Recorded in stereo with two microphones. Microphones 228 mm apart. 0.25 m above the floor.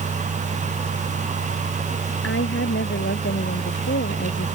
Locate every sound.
2.2 s a woman speaking: 65° left (ahead or behind); by 4.5 s 55° left (ahead or behind)